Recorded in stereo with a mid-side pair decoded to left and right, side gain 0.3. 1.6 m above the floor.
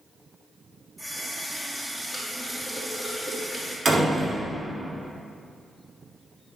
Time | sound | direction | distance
1.0 | a running tap | 10° right | 2.5 m
3.9 | a door slam | 50° right | 3 m